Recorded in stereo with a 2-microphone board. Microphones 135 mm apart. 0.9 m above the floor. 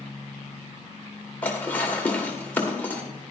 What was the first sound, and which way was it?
Dishes clattering, 10° left (ahead or behind).